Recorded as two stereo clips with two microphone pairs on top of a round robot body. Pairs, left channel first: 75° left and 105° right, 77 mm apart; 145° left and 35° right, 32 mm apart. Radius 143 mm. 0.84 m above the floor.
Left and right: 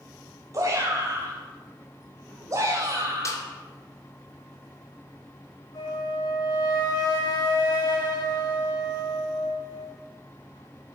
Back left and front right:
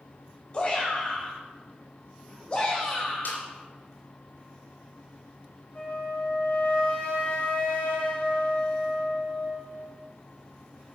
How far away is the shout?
About 5.5 m.